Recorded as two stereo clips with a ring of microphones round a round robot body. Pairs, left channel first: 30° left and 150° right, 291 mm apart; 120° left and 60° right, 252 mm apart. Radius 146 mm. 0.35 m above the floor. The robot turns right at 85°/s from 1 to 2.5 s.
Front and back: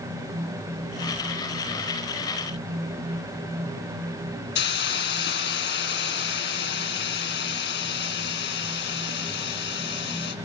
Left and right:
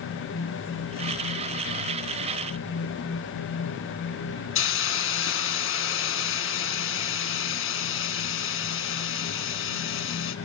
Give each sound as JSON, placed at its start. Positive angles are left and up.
{"t": 4.5, "sound": "a hiss", "azimuth_deg": 85, "distance_m": 3.5}